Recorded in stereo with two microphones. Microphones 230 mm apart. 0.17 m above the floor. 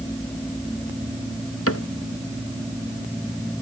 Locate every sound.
1.7 s a cupboard door: 80° left